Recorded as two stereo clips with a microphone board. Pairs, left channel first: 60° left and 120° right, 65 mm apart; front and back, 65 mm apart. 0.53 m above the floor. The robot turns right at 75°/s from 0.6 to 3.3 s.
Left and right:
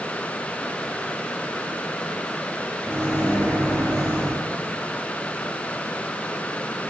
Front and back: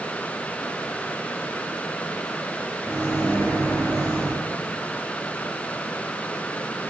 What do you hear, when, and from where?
2.8 s a microwave: 5° right, 1.2 m; by 4.4 s 30° left, 1.2 m